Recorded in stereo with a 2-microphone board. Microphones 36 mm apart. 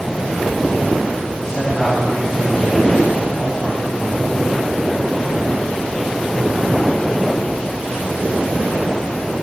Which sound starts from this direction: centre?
A man speaking, at 1.4 s.